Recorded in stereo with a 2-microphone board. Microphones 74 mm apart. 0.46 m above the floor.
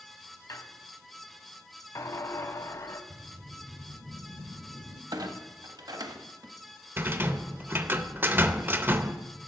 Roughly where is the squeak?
Left.